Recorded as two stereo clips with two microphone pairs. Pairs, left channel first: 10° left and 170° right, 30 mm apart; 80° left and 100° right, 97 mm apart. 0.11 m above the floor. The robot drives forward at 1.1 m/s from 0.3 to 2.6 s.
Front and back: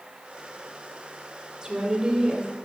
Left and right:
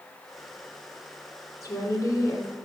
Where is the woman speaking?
135° left, 3 m; by 2.5 s 145° left, 4 m.